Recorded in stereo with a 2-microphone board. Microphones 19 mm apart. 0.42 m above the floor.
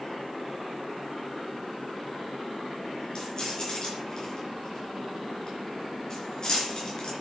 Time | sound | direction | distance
3.1 | keys jangling | 35° left (ahead or behind) | 4.5 m